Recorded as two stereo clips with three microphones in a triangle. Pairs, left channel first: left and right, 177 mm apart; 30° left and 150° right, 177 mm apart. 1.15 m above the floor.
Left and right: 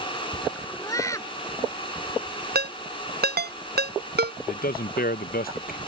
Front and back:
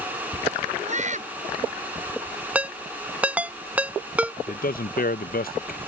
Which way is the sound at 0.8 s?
165° left.